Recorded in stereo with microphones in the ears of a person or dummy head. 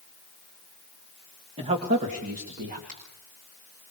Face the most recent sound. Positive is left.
turn(degrees=-40)  # may be behind; listen again after turning